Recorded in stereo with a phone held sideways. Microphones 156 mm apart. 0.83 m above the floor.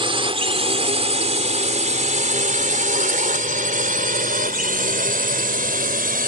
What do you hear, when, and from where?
0.0 s a drone: 35° right (ahead or behind); by 6.3 s 75° right (ahead or behind)